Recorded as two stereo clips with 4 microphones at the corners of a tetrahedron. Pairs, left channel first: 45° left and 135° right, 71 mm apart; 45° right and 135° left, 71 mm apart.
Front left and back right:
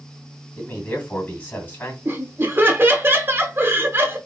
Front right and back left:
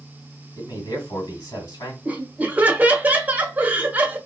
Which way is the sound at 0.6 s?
15° right.